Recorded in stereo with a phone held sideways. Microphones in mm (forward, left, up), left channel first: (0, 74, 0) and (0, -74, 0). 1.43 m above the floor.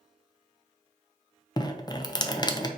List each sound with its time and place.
1.6 s dripping: 30° left (ahead or behind), 0.5 m